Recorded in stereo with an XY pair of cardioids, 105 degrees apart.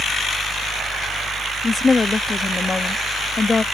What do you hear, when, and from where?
0.0 s a fan: 45° right
1.6 s a woman speaking: 25° left